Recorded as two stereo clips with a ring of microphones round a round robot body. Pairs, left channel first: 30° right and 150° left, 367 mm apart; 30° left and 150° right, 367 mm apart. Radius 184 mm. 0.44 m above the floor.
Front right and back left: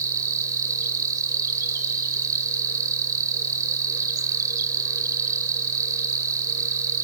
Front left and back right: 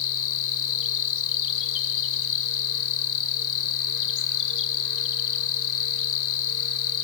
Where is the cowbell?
No cowbell in this recording.